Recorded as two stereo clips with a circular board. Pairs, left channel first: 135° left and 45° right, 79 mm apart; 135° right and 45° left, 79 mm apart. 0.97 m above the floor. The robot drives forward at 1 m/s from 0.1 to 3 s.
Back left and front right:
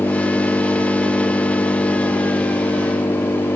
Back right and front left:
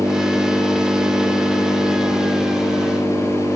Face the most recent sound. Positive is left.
turn(degrees=105)